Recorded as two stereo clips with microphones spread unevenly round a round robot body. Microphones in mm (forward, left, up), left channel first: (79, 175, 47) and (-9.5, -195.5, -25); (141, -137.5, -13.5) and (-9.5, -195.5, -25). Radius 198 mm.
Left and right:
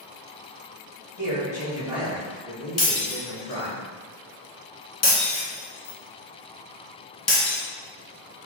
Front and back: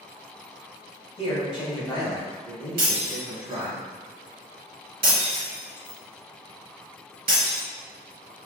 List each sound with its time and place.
1.2 s a man speaking: 30° right, 2.0 m; by 3.8 s 165° left, 1.4 m
2.8 s breaking glass: 155° left, 1.1 m